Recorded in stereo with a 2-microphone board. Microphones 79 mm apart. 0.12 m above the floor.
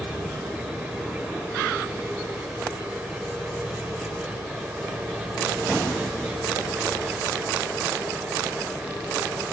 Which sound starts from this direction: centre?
An engine running, at 0.0 s.